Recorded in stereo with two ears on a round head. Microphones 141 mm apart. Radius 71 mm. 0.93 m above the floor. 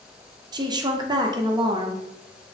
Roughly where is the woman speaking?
Right.